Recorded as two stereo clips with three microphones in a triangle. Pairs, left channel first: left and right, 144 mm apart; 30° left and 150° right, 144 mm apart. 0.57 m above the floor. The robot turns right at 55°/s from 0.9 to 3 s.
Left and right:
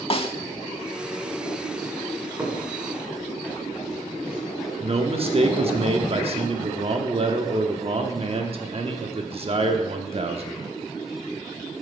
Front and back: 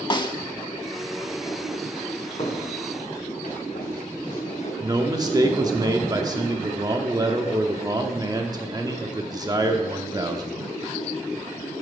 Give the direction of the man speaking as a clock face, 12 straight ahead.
3 o'clock.